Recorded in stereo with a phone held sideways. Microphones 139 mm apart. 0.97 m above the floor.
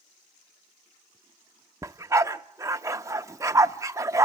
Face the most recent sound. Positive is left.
turn(degrees=-20)  # may be behind; listen again after turning